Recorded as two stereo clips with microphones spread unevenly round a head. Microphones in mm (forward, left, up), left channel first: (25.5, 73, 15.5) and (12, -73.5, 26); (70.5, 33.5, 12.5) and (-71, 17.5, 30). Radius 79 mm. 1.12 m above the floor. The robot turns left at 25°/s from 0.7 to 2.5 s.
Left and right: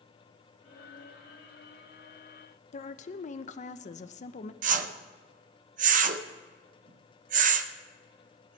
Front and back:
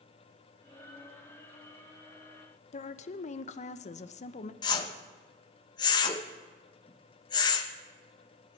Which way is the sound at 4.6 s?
55° right.